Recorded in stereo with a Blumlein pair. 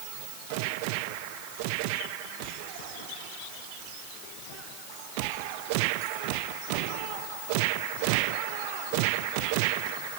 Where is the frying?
I don't hear frying.